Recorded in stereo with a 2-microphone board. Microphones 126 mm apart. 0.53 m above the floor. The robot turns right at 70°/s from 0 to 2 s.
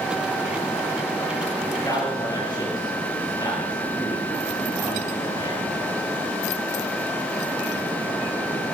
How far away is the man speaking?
About 9.5 m.